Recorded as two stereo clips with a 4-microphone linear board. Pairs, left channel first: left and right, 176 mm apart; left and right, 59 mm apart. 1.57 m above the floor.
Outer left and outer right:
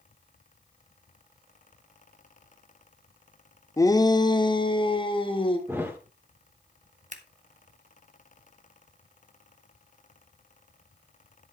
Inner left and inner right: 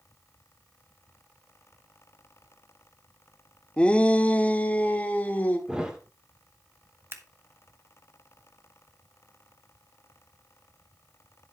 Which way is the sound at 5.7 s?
15° right (ahead or behind).